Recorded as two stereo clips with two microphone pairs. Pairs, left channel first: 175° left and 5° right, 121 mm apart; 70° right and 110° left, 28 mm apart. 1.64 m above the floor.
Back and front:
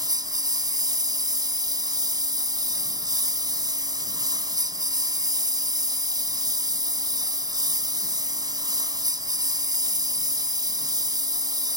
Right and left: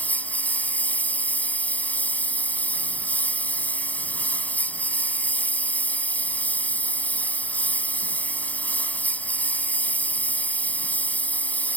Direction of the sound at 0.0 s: 60° right.